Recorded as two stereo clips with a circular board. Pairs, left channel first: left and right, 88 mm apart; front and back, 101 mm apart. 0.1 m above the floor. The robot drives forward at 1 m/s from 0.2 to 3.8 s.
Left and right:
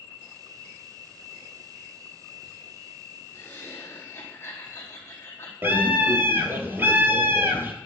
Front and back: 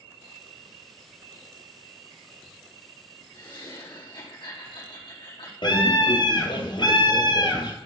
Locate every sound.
3.3 s laughter: 30° left, 4.5 m
5.6 s a scream: 30° right, 2 m